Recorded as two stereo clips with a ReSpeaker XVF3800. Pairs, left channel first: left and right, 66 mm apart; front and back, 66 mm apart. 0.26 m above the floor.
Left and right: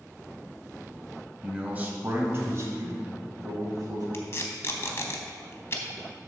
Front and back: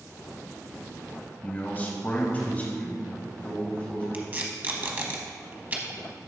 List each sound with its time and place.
1.4 s a man speaking: 30° right, 1.0 m; by 4.0 s 70° right, 2.5 m
4.1 s tape being pulled: 125° left, 1.0 m